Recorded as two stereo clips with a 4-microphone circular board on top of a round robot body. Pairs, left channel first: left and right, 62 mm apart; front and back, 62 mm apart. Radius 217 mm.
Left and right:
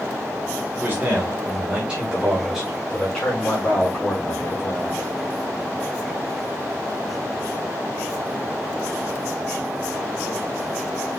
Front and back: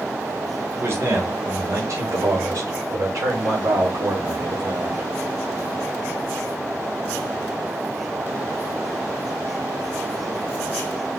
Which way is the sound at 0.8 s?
145° right.